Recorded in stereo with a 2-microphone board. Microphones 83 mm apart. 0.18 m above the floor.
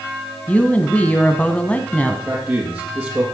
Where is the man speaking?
35° right (ahead or behind), 4 m.